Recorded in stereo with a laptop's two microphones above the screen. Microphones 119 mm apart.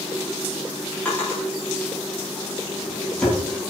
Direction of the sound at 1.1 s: 10° left (ahead or behind).